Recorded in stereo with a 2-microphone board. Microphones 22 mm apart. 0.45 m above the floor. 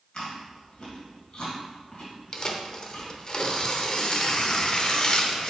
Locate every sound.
0.1 s chewing: 45° left (ahead or behind), 3 m
2.3 s tearing paper: 40° left (ahead or behind), 0.8 m